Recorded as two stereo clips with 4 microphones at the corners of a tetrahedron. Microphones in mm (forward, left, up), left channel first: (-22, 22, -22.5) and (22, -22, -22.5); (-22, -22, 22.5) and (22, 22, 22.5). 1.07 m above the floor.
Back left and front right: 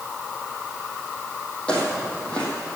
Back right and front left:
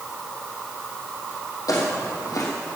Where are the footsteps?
150° right, 3 m.